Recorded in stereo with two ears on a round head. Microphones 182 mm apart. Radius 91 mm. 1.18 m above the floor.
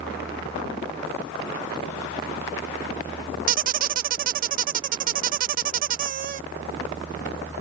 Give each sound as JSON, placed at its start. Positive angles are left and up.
{"t": 3.5, "sound": "a squeak", "side_deg": -40}